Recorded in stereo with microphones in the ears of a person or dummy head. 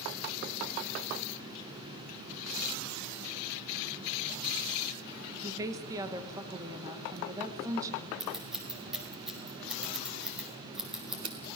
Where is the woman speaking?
15° right (ahead or behind), 1.9 m.